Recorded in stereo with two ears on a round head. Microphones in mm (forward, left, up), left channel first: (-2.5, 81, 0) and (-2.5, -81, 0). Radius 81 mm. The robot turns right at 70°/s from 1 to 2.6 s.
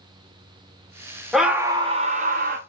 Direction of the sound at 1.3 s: Straight behind.